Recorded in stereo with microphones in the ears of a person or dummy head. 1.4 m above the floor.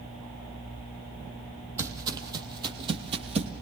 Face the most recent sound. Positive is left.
turn(degrees=-45)  # may be behind; listen again after turning